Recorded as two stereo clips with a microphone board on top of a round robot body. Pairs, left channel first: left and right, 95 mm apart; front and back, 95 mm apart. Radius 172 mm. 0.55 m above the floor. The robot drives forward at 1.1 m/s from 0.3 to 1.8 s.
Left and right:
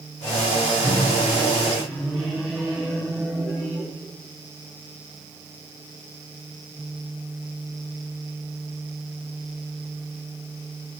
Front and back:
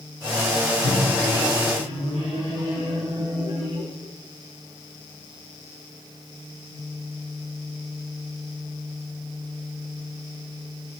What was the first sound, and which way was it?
A microwave, straight behind.